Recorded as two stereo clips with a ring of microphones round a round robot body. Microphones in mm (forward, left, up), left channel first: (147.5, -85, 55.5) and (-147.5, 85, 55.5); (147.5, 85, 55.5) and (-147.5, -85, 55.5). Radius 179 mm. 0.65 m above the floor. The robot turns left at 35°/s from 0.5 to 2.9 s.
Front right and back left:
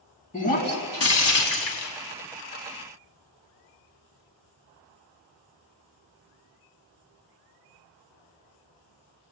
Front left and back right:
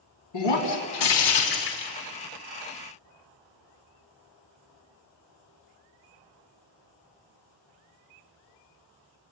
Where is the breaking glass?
40° left, 4 m; by 1.9 s 10° right, 4 m.